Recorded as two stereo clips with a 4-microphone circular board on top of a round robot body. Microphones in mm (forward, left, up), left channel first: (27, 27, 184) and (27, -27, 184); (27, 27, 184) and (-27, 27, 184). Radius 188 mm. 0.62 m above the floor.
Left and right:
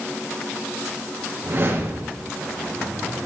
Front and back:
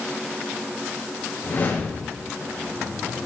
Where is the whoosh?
45° right, 4 m.